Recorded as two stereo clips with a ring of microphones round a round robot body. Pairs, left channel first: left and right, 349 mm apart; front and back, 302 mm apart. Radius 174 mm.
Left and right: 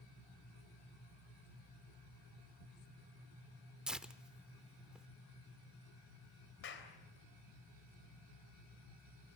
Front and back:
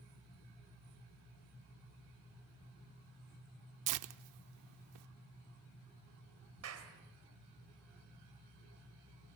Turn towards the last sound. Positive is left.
turn(degrees=145)